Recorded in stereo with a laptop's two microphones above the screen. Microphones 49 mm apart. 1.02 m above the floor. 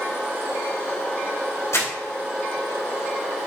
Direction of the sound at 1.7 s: 85° left.